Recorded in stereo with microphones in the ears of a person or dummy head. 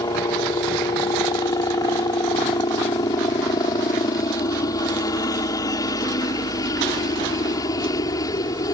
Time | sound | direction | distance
0.0 | a helicopter | 20° left (ahead or behind) | ?